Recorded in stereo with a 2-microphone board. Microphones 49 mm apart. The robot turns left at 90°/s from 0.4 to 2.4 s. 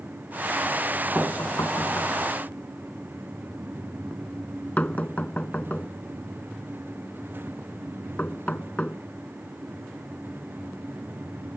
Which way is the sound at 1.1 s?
40° left (ahead or behind).